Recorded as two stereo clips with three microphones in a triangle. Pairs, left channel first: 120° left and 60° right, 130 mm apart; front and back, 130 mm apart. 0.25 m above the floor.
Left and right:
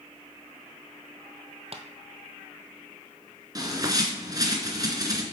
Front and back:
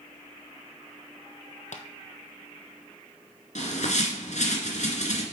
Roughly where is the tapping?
Ahead.